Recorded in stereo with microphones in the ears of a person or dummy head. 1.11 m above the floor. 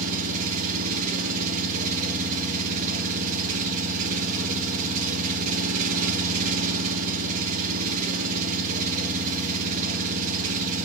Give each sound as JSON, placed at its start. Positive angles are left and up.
{"t": 0.0, "sound": "an engine running", "side_deg": -45, "distance_m": 0.8}